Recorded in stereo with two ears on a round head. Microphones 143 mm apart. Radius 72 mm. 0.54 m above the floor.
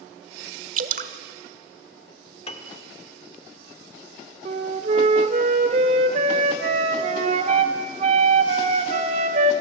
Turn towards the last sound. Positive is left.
turn(degrees=-45)  # may be behind; listen again after turning